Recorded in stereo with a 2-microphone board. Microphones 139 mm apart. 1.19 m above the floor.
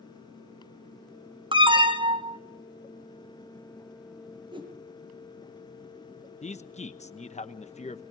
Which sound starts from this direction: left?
A man speaking, at 6.4 s.